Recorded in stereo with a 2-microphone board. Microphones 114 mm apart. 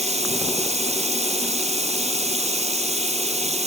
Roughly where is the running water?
Right.